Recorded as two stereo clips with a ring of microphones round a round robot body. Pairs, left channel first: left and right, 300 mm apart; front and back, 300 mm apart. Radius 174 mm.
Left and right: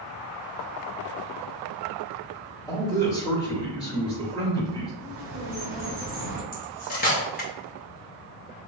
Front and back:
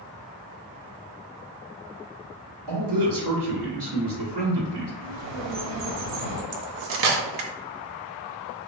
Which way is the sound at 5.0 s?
155° right.